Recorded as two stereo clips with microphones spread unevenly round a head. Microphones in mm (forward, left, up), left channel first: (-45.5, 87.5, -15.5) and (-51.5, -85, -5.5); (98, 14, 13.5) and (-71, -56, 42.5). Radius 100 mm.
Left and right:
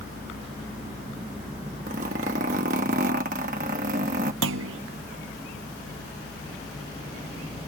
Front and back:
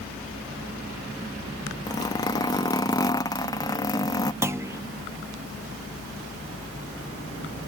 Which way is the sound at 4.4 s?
80° right.